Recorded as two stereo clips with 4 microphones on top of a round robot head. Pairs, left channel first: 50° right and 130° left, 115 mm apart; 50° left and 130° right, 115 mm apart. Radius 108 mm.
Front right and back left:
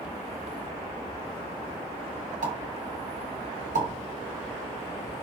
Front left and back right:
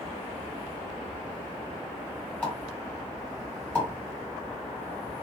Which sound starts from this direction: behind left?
A pop, at 2.4 s.